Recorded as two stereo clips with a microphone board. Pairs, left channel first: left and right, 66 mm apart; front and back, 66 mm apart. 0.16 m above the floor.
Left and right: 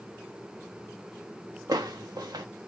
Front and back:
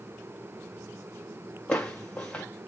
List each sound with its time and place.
1.7 s footsteps: 70° right, 1.1 m